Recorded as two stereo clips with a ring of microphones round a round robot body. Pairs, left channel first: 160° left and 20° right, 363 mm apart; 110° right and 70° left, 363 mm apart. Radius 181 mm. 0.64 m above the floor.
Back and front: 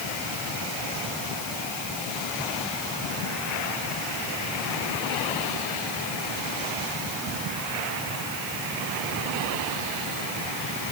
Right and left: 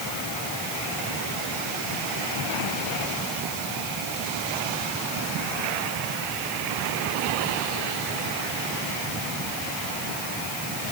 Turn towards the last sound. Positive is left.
No sound to turn to.